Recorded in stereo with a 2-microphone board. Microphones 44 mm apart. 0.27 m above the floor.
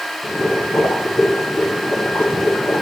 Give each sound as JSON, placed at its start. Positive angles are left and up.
{"t": 0.2, "sound": "boiling", "side_deg": 65, "distance_m": 8.5}